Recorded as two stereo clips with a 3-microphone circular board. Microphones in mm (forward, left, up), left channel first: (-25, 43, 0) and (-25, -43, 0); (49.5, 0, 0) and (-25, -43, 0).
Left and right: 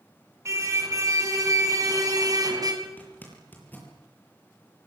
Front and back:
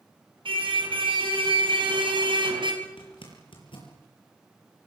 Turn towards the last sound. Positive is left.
turn(degrees=20)